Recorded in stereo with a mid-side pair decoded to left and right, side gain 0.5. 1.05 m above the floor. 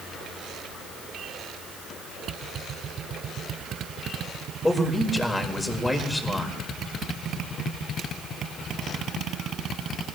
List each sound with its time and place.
4.6 s a man speaking: 15° left, 4.5 m